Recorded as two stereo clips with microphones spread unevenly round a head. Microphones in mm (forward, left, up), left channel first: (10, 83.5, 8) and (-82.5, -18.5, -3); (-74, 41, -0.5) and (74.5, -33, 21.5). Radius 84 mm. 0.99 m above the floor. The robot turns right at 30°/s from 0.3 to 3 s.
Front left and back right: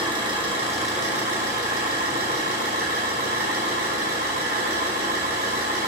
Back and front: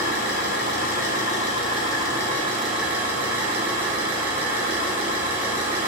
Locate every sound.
0.0 s an engine running: 175° left, 3 m; by 5.9 s 105° right, 3 m